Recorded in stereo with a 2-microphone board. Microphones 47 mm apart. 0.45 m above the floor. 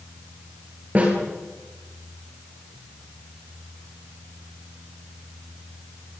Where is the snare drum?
40° right (ahead or behind), 9.5 m.